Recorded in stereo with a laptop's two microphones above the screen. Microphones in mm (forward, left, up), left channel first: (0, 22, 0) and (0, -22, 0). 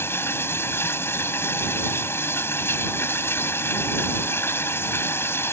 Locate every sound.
0.0 s running water: 80° left